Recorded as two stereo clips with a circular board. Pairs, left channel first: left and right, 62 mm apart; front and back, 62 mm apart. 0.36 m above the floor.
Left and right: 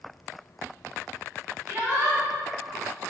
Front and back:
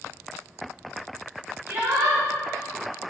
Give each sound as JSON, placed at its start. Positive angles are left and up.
{"t": 1.7, "sound": "a shout", "azimuth_deg": -140, "distance_m": 2.5}